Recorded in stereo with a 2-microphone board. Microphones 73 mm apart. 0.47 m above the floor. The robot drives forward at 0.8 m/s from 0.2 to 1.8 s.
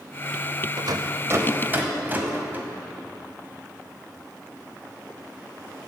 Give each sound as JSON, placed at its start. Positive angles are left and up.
{"t": 0.8, "sound": "a rattle", "side_deg": -70, "distance_m": 0.5}